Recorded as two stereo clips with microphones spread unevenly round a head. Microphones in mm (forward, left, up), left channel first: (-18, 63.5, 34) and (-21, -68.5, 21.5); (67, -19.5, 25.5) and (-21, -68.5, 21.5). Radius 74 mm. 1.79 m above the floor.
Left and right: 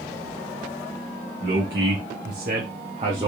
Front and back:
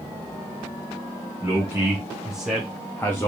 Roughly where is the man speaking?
Right.